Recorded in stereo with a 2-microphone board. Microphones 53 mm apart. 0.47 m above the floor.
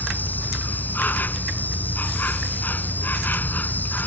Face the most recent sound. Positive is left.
turn(degrees=35)  # may be behind; listen again after turning